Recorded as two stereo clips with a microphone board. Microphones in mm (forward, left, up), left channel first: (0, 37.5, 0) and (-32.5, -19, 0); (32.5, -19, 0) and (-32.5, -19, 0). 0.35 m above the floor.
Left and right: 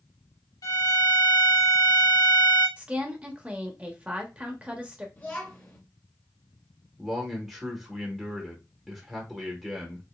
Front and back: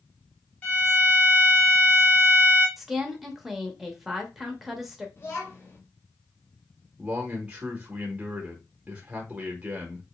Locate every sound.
0.6 s a violin: 65° left, 1.8 m
2.8 s a woman speaking: 100° right, 0.8 m
5.2 s a child speaking: 15° left, 1.0 m
7.0 s a man speaking: 165° left, 0.9 m